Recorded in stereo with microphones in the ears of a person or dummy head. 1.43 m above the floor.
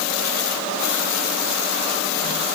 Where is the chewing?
I don't hear chewing.